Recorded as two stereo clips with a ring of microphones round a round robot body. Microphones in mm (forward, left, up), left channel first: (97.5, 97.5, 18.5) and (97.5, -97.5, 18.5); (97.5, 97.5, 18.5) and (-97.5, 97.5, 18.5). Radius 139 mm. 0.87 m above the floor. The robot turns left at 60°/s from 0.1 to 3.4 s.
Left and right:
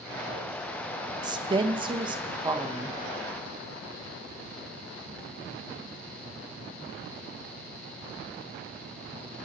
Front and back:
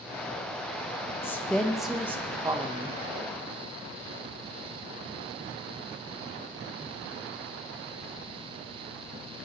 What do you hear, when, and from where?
1.2 s a woman speaking: 60° right, 0.9 m; by 3.0 s 165° right, 0.9 m